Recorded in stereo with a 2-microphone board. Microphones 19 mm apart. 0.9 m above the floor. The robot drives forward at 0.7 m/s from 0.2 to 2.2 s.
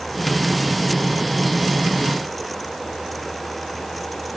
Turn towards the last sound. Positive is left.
No sound to turn to.